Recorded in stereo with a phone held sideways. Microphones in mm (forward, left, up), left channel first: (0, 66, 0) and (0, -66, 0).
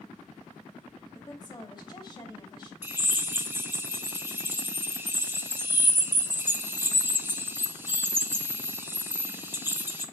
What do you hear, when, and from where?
1.1 s a woman speaking: 35° left (ahead or behind), 1.7 m
2.8 s a drill: 15° right (ahead or behind), 0.8 m